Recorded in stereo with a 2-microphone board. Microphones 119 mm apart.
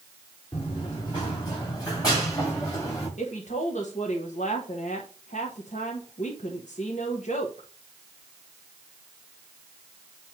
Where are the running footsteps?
40° left (ahead or behind), 4 m; by 3.1 s 25° left (ahead or behind), 6 m.